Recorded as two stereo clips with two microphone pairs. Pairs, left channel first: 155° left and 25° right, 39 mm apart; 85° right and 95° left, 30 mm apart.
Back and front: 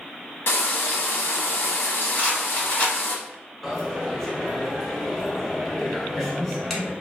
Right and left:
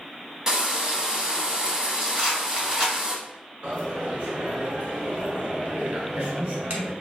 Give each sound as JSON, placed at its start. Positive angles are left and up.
{"t": 0.5, "sound": "frying", "azimuth_deg": 165, "distance_m": 0.5}
{"t": 2.1, "sound": "a rattle", "azimuth_deg": 130, "distance_m": 1.6}
{"t": 3.6, "sound": "a dropped coin", "azimuth_deg": 70, "distance_m": 0.8}